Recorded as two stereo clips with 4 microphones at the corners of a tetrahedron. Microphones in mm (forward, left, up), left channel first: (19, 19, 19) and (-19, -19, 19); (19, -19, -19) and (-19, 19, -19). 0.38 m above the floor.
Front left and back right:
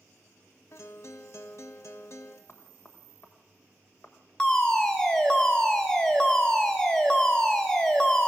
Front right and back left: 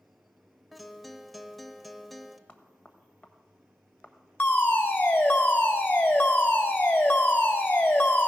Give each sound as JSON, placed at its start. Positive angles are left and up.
{"t": 0.7, "sound": "a guitar", "azimuth_deg": 45, "distance_m": 0.6}
{"t": 2.5, "sound": "knocking", "azimuth_deg": 15, "distance_m": 1.2}
{"t": 4.4, "sound": "a fire alarm", "azimuth_deg": -15, "distance_m": 2.0}